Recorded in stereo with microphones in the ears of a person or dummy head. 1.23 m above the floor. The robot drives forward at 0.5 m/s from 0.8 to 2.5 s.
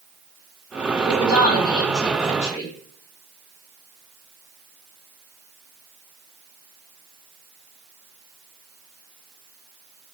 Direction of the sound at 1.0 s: 25° left (ahead or behind).